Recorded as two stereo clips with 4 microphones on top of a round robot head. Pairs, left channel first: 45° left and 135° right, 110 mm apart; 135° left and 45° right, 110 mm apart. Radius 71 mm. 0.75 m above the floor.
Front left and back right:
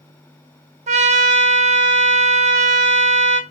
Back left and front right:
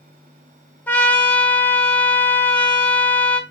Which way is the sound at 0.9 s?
150° right.